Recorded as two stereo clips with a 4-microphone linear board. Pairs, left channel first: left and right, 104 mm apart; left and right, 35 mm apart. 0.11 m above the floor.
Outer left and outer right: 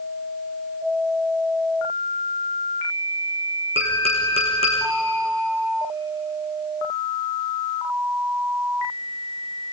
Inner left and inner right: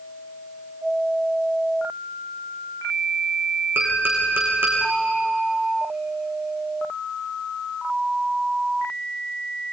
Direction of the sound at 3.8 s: 70° right (ahead or behind).